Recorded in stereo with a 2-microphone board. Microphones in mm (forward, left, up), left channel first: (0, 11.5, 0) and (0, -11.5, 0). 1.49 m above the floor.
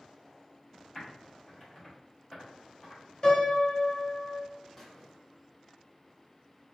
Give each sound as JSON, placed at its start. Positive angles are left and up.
{"t": 0.9, "sound": "typing on a keyboard", "side_deg": 10, "distance_m": 1.9}
{"t": 3.2, "sound": "a piano", "side_deg": 30, "distance_m": 1.8}
{"t": 4.8, "sound": "a squeak", "side_deg": 10, "distance_m": 1.1}